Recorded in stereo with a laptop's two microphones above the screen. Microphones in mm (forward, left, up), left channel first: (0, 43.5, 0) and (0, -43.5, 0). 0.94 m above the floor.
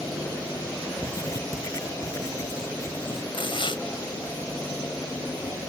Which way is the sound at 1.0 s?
35° left (ahead or behind).